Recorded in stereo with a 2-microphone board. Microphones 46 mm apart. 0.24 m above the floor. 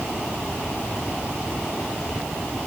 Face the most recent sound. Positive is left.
No sound to turn to.